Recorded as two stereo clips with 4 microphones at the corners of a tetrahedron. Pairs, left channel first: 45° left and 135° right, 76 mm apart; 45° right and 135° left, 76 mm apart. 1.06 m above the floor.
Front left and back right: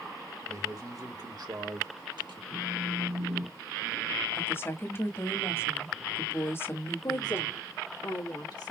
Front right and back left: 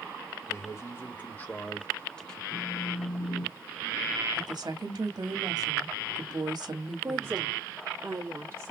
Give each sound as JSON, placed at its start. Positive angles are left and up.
{"t": 0.5, "sound": "a man speaking", "azimuth_deg": -95, "distance_m": 1.9}
{"t": 2.5, "sound": "a phone buzzing", "azimuth_deg": -120, "distance_m": 3.0}
{"t": 4.3, "sound": "a woman speaking", "azimuth_deg": 105, "distance_m": 1.7}
{"t": 7.0, "sound": "a woman speaking", "azimuth_deg": 75, "distance_m": 1.7}